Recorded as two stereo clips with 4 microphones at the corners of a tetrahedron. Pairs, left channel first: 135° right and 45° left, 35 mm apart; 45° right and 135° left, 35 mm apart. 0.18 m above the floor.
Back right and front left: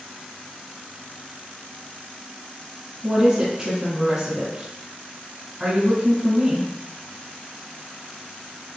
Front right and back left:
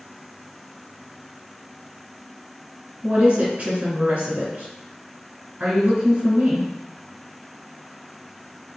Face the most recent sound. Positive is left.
turn(degrees=95)